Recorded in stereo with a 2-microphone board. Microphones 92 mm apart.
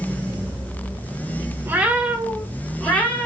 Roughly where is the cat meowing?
Right.